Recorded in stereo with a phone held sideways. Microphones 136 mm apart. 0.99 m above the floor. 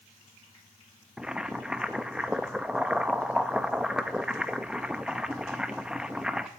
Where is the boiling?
5° right (ahead or behind), 0.5 m.